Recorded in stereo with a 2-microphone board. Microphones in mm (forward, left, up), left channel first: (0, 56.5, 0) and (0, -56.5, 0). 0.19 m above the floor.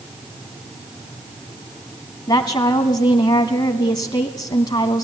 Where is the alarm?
No alarm in this recording.